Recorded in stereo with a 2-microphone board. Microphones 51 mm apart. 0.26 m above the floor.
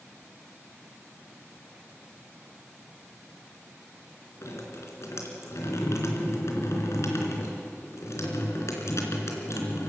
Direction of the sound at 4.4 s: 70° left (ahead or behind).